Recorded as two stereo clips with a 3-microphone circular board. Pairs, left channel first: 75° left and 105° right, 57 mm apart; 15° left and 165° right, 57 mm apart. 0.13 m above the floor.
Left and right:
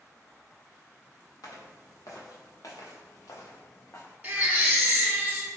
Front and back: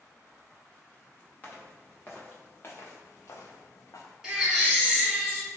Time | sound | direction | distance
1.4 | footsteps | 75° left | 1.7 m
4.2 | a baby crying | 100° right | 1.1 m